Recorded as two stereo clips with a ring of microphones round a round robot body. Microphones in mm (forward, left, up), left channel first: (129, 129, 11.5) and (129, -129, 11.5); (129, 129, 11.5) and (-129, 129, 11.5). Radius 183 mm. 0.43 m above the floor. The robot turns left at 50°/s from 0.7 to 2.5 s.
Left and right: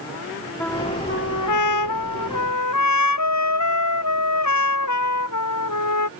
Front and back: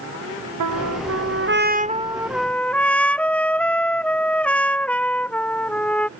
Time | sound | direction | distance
0.6 | a trumpet | 175° left | ?